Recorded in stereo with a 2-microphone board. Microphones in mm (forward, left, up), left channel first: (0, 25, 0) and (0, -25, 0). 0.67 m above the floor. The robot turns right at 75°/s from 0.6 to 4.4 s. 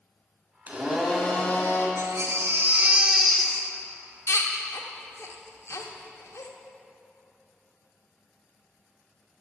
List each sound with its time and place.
0.7 s a blender: 30° right, 1.7 m; by 1.9 s 60° left, 1.7 m
2.0 s a baby crying: 70° right (ahead or behind), 0.9 m; by 6.5 s 75° left (ahead or behind), 0.9 m